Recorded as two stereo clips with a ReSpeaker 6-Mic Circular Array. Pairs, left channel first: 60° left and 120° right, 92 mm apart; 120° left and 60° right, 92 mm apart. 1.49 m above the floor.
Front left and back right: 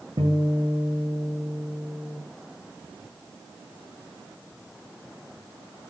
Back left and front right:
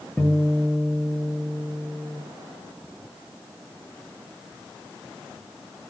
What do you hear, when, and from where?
0.2 s a guitar: 160° right, 10 m